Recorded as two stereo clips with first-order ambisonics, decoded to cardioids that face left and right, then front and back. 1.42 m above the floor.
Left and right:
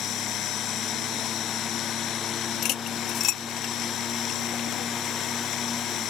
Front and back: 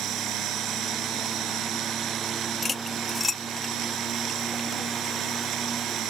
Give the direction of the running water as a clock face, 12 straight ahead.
7 o'clock.